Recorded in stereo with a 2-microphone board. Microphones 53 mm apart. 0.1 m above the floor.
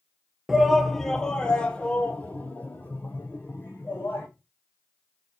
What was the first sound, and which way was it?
A shout, 5° right (ahead or behind).